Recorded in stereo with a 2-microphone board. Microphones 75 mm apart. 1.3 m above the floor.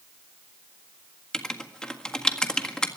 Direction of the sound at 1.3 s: 10° left (ahead or behind).